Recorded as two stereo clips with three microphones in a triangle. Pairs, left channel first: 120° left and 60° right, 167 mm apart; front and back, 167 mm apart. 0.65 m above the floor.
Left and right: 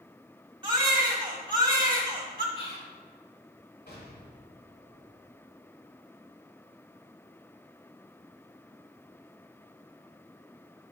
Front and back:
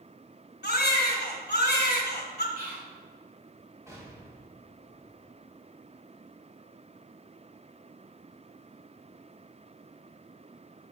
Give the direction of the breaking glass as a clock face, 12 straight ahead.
I don't hear breaking glass.